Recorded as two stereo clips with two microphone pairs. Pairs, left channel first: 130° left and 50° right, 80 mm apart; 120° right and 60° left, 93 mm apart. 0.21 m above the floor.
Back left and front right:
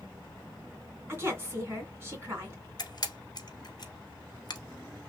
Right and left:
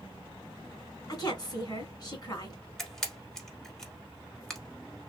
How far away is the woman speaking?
About 2 m.